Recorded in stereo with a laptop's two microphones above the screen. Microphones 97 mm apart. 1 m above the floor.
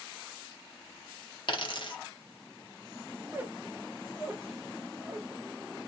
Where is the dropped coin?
55° left (ahead or behind), 0.7 m.